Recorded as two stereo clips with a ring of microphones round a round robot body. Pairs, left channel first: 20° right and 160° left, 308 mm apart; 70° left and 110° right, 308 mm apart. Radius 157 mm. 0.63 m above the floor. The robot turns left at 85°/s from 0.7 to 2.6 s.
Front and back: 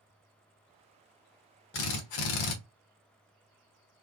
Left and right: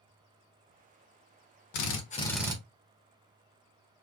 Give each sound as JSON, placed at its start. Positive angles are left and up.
{"t": 1.7, "sound": "a drill", "azimuth_deg": 30, "distance_m": 0.9}